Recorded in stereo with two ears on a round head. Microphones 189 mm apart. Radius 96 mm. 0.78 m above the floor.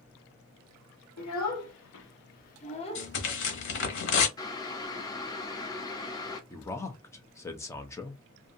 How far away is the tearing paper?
About 0.9 m.